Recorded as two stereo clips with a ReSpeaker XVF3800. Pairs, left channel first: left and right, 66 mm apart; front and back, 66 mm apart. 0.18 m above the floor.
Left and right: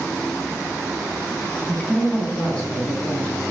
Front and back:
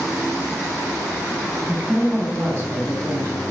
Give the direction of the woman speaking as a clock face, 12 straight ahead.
8 o'clock.